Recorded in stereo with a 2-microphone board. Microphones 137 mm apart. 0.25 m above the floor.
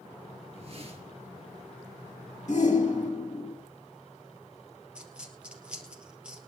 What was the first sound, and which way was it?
A whoosh, 45° right (ahead or behind).